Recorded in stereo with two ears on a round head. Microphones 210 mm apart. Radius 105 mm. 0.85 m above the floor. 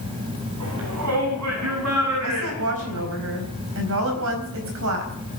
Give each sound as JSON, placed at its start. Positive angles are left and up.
{"t": 0.6, "sound": "a shout", "side_deg": -75, "distance_m": 6.0}
{"t": 2.2, "sound": "a woman speaking", "side_deg": -70, "distance_m": 5.0}